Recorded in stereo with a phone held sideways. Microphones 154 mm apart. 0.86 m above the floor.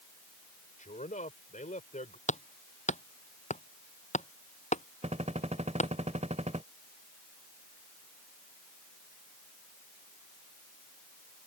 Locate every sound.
0.8 s a man speaking: 55° left (ahead or behind)
2.3 s hammering: 50° left (ahead or behind)
5.0 s a gunshot: 50° right (ahead or behind)